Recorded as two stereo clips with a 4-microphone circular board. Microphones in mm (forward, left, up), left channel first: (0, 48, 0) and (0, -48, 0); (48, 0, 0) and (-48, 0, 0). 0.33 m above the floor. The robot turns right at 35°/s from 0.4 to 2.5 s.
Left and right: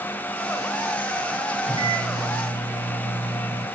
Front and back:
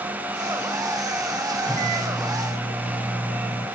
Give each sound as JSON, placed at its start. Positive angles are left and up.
{"t": 1.6, "sound": "a microwave", "azimuth_deg": -80, "distance_m": 4.5}